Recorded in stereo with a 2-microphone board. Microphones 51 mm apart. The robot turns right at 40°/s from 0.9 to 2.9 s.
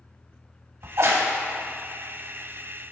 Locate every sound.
0.8 s a crack: 65° right (ahead or behind), 0.8 m; by 1.3 s 50° right (ahead or behind), 0.8 m